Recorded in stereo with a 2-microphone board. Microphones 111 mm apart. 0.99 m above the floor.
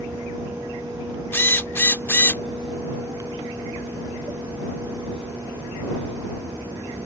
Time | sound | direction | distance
1.3 | a drill | 20° left (ahead or behind) | ?